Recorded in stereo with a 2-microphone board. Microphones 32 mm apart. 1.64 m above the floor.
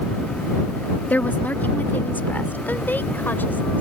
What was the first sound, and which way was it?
A woman speaking, 70° left (ahead or behind).